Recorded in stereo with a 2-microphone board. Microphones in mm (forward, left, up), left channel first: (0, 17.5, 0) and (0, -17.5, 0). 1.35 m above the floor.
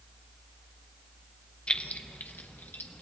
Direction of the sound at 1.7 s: 30° left (ahead or behind).